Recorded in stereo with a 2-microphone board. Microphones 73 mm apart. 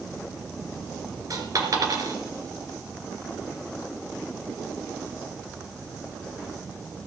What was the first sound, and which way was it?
A dropped coin, 55° right (ahead or behind).